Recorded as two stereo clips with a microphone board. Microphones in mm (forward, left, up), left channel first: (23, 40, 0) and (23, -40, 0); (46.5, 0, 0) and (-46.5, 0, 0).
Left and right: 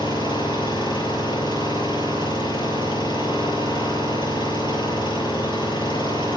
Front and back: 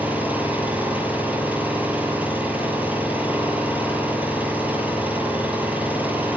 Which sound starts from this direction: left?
An engine running, at 0.0 s.